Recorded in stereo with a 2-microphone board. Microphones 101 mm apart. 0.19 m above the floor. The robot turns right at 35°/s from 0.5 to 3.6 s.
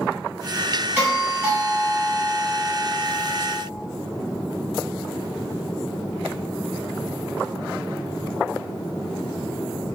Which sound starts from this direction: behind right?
A doorbell, at 1.0 s.